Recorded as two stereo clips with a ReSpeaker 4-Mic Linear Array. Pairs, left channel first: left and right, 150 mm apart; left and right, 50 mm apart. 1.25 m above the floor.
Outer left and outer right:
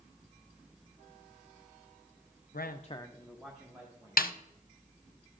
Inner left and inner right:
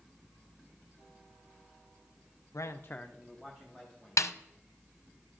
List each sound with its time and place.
2.5 s a man speaking: 80° left, 0.6 m; by 4.2 s 15° right (ahead or behind), 2 m
4.2 s a snare drum: 75° left (ahead or behind), 0.6 m